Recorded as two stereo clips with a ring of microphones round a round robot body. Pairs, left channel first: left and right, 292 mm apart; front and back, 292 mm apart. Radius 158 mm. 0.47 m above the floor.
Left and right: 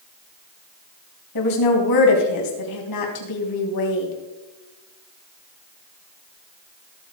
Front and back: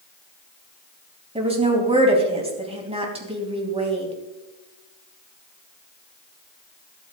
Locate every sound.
1.4 s a woman speaking: 110° left, 3.5 m